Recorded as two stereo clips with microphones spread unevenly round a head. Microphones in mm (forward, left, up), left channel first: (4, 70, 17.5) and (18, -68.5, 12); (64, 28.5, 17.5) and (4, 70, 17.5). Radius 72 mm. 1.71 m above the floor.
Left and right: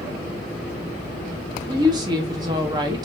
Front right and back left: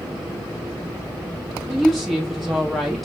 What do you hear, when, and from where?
1.7 s a woman speaking: 125° right, 0.6 m